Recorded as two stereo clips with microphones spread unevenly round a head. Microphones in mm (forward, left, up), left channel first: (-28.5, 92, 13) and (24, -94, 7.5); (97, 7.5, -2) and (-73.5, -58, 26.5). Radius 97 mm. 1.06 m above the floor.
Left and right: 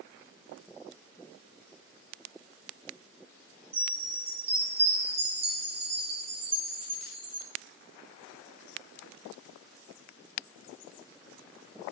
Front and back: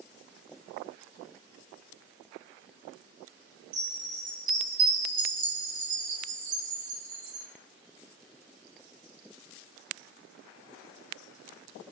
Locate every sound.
3.7 s a chime: 135° right, 1.4 m